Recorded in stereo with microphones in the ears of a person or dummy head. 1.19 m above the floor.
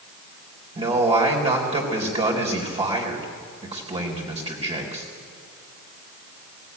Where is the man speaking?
25° right (ahead or behind), 4 m.